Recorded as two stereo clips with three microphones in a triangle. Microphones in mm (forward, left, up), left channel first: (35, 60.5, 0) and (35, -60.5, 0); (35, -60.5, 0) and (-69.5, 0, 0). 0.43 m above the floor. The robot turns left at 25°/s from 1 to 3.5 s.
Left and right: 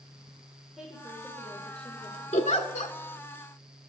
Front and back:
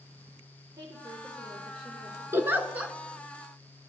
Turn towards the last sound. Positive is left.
turn(degrees=55)